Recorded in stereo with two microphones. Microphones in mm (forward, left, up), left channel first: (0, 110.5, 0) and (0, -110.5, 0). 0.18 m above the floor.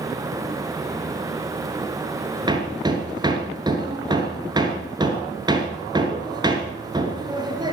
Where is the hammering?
20° right (ahead or behind), 1.7 m.